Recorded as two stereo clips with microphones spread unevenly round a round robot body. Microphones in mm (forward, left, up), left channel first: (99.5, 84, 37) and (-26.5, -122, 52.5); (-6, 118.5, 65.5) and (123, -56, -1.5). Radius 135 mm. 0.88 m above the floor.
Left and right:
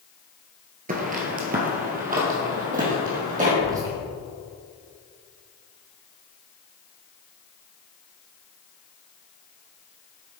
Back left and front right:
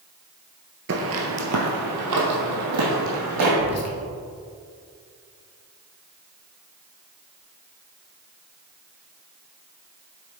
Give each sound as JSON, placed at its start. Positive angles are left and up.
{"t": 0.9, "sound": "footsteps", "azimuth_deg": -95, "distance_m": 1.0}
{"t": 3.6, "sound": "whispering", "azimuth_deg": 160, "distance_m": 1.3}